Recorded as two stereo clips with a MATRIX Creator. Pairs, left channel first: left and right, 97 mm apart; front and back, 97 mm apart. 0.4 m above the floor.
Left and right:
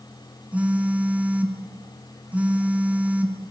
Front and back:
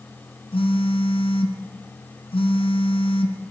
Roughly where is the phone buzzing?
Ahead.